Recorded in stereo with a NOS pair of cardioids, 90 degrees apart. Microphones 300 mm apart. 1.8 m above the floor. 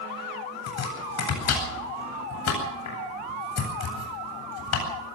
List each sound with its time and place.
0.7 s chopping: 60° left, 9 m